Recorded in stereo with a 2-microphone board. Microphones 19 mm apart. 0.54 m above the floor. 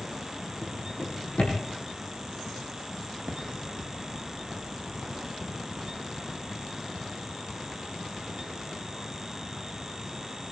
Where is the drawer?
70° left (ahead or behind), 7.5 m.